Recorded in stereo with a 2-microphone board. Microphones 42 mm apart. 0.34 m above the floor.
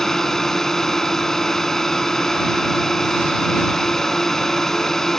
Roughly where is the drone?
Centre.